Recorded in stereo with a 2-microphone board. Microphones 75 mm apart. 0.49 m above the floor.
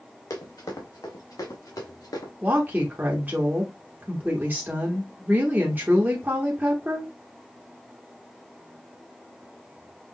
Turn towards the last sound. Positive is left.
turn(degrees=-25)  # may be behind; listen again after turning